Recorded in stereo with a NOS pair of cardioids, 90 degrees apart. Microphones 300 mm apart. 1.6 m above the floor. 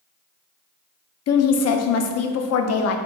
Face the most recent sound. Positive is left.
turn(degrees=55)